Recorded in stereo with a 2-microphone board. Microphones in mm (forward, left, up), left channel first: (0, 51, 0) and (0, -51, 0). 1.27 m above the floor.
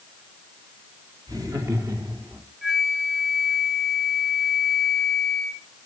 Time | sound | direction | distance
1.3 | laughter | 35° right (ahead or behind) | 4 m
2.6 | a flute | 5° right (ahead or behind) | 1.2 m